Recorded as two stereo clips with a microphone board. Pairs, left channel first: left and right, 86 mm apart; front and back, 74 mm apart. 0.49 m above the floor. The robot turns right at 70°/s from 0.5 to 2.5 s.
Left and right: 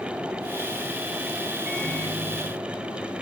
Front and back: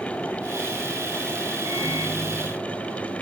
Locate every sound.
1.6 s a microwave: 155° right, 5.5 m; by 3.2 s 95° right, 5.5 m